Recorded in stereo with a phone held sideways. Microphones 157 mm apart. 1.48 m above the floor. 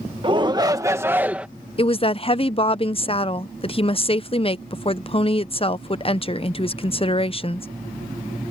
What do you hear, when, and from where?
0.2 s a shout: 30° right (ahead or behind); by 1.5 s 5° right (ahead or behind)
1.8 s a woman speaking: 35° left (ahead or behind)